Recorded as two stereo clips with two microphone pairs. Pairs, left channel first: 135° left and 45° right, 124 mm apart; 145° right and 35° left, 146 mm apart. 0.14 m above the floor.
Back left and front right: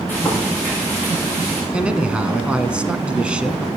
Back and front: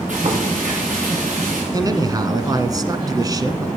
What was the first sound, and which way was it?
Frying, 65° left.